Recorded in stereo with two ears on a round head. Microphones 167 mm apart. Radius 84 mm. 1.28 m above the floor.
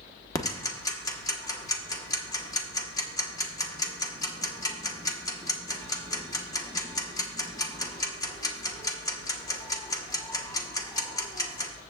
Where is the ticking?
20° left (ahead or behind), 1.1 m.